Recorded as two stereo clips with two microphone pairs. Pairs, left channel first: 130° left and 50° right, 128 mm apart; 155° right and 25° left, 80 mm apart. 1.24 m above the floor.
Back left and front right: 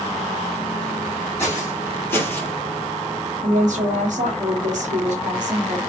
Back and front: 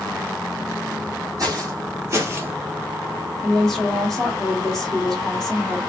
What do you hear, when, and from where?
1.4 s footsteps: 60° left, 2.5 m; by 2.5 s 70° left, 1.4 m
3.4 s a woman speaking: 70° right, 1.9 m